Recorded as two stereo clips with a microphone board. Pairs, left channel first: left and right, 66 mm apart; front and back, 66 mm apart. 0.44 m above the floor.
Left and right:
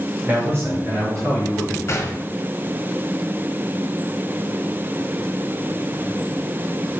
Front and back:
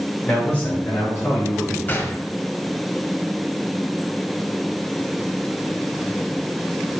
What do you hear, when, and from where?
0.3 s a man speaking: 55° right, 1.3 m
1.9 s a gunshot: 55° left, 0.6 m